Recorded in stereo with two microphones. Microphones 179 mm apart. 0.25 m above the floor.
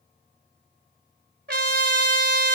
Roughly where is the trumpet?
Right.